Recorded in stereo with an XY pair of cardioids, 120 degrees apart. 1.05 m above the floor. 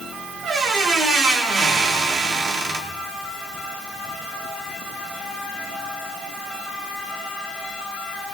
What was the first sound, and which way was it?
A squeak, 65° right.